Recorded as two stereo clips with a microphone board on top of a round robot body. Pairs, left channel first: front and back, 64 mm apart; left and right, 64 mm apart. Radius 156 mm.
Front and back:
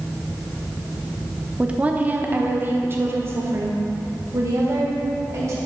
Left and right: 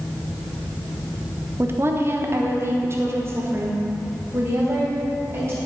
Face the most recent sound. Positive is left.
turn(degrees=-140)